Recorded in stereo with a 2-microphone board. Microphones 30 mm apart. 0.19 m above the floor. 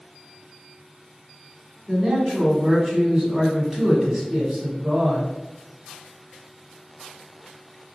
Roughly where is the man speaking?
Centre.